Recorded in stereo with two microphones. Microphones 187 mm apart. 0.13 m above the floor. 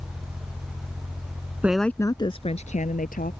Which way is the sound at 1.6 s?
10° right (ahead or behind).